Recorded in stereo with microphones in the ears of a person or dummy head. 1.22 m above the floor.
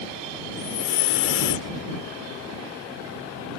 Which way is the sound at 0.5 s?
60° left (ahead or behind).